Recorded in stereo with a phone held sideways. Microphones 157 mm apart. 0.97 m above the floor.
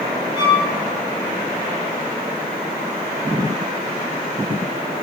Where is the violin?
30° left (ahead or behind), 1.7 m.